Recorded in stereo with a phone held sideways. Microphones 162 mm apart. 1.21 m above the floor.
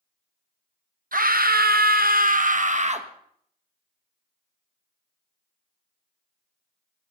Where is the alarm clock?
No alarm clock in this recording.